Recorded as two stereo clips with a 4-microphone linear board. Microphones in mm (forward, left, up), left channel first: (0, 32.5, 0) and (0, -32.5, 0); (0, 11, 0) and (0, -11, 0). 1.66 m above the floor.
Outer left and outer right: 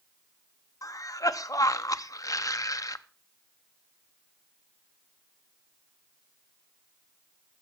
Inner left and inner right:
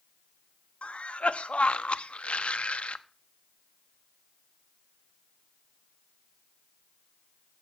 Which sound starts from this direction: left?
A cough, at 0.8 s.